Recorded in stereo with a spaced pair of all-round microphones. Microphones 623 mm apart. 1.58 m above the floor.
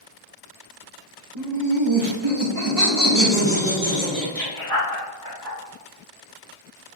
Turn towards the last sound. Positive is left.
turn(degrees=20)  # may be behind; listen again after turning